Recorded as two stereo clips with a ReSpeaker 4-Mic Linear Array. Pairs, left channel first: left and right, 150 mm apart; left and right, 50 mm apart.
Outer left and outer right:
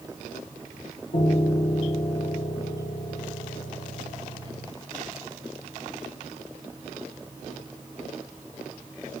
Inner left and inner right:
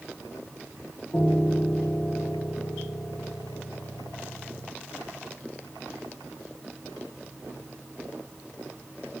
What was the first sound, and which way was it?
A piano, 85° left.